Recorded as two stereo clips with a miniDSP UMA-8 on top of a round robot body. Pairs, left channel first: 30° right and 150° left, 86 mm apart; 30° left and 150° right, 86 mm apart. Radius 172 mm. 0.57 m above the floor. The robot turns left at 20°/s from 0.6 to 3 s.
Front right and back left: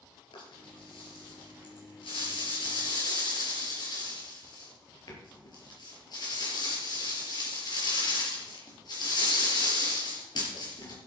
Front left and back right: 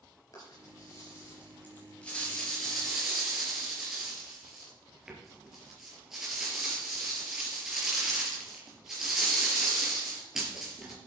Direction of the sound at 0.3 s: 15° right.